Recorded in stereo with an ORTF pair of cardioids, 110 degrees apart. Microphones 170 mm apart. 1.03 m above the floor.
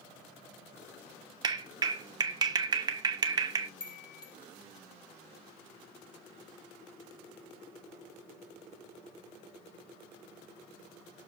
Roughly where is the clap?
Ahead right.